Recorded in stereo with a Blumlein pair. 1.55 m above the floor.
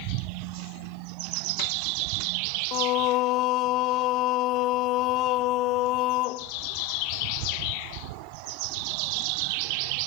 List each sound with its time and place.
2.7 s singing: 40° left, 0.8 m